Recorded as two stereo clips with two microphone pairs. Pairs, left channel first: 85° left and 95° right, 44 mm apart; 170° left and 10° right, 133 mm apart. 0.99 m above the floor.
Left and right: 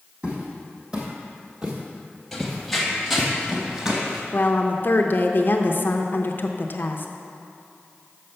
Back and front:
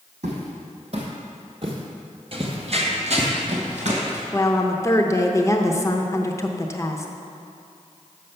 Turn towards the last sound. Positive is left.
turn(degrees=105)